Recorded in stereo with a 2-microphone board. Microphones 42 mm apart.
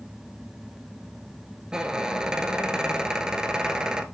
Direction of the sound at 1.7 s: 20° right (ahead or behind).